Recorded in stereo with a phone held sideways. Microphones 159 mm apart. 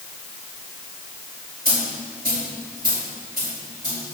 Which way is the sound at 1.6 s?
75° right (ahead or behind).